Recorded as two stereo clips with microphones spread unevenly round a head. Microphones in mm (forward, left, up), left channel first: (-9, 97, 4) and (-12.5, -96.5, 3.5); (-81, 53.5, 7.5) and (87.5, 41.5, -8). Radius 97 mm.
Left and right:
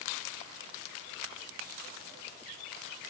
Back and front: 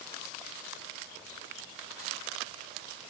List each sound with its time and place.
Only background noise.